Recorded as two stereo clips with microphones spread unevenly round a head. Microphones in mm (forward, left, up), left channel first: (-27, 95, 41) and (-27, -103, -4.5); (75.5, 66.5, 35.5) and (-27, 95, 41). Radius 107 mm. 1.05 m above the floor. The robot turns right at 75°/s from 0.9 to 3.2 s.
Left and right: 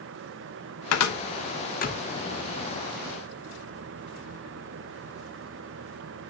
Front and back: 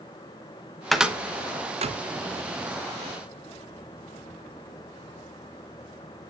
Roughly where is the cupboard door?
Left.